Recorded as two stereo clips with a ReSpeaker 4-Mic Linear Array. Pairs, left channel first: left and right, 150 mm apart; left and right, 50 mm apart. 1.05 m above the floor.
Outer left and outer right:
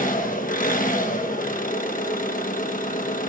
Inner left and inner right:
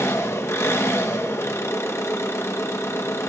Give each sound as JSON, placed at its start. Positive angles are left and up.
{"t": 0.0, "sound": "an engine running", "side_deg": 65, "distance_m": 1.2}